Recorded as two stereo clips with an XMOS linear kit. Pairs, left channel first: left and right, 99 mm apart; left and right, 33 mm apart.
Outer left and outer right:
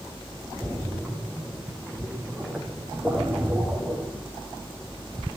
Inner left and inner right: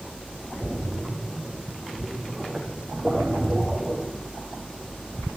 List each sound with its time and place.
0.6 s a splash: 5° left (ahead or behind), 9.5 m